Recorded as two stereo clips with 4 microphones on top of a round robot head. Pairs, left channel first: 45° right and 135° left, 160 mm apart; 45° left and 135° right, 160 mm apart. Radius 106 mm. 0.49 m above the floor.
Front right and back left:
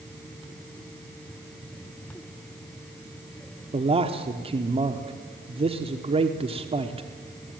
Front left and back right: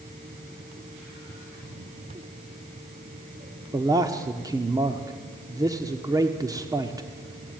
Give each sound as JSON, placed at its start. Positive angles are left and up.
{"t": 3.7, "sound": "a man speaking", "azimuth_deg": 165, "distance_m": 1.2}